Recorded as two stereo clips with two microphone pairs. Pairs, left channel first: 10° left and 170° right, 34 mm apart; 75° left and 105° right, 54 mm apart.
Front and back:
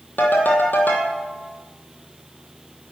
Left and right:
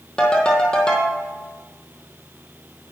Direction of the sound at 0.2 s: Straight ahead.